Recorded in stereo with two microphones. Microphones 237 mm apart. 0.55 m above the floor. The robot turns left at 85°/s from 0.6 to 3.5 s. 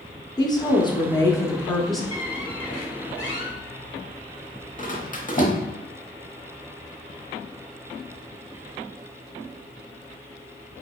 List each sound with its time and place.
0.4 s a woman speaking: 15° left (ahead or behind), 0.6 m; by 2.0 s centre (ahead or behind), 0.6 m
2.1 s a squeak: 25° left (ahead or behind), 0.8 m; by 5.6 s 35° left (ahead or behind), 0.8 m